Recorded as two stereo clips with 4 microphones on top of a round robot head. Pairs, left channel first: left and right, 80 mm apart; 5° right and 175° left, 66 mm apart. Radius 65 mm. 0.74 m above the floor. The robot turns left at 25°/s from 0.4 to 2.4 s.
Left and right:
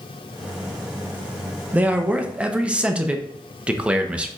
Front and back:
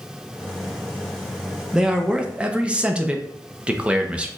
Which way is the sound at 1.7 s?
125° right.